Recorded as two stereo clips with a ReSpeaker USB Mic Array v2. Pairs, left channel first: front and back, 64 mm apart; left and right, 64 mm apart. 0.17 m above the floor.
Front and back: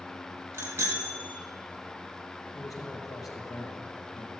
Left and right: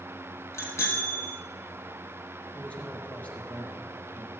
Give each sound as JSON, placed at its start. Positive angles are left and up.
{"t": 0.5, "sound": "a bicycle bell", "azimuth_deg": 130, "distance_m": 3.5}
{"t": 2.5, "sound": "a man speaking", "azimuth_deg": 25, "distance_m": 3.5}